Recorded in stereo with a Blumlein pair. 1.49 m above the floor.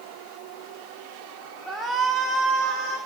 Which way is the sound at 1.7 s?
10° right.